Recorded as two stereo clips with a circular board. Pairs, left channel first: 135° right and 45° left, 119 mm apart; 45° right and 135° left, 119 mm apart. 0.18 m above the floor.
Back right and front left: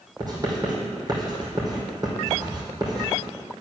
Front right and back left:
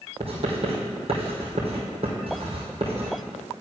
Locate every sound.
0.2 s writing: 100° left, 2.5 m